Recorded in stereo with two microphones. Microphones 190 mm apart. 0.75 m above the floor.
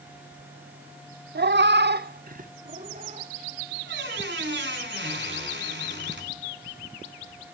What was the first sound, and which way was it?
A cat meowing, 60° right (ahead or behind).